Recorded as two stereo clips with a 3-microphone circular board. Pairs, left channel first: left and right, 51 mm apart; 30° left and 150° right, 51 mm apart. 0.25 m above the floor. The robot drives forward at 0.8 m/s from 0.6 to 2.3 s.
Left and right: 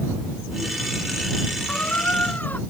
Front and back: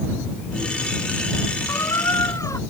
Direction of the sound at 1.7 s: 30° left.